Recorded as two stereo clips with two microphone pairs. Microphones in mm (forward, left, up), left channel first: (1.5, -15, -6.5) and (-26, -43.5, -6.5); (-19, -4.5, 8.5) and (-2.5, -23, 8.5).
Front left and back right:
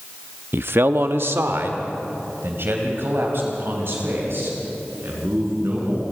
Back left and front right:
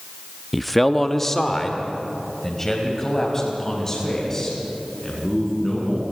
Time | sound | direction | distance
0.5 | a man speaking | 135° right | 0.6 m